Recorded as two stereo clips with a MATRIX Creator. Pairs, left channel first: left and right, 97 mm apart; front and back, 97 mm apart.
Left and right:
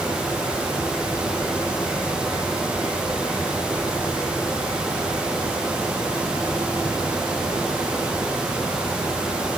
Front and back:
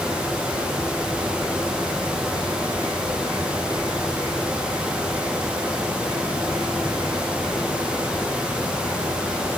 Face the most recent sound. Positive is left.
No sound to turn to.